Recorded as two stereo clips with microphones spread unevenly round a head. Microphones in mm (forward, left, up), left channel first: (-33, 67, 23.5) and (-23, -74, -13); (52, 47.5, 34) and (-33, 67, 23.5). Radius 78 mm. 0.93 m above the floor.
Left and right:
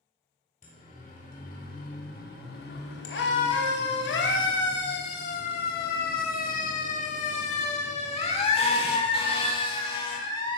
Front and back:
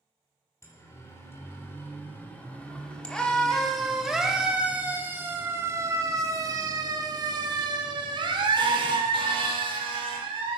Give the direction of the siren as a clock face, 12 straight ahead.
11 o'clock.